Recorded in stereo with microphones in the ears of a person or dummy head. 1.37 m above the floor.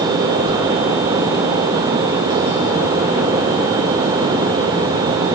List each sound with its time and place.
0.5 s a whoosh: 70° right (ahead or behind), 4.5 m